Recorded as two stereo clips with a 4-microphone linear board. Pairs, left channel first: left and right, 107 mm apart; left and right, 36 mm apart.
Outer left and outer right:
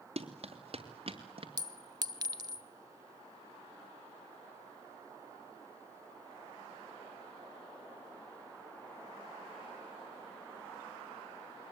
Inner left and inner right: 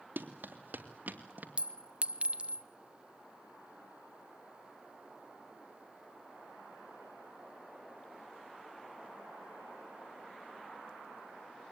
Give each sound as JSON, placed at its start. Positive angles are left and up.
{"t": 0.2, "sound": "running footsteps", "side_deg": -70, "distance_m": 2.5}
{"t": 1.6, "sound": "a clink", "side_deg": -40, "distance_m": 0.7}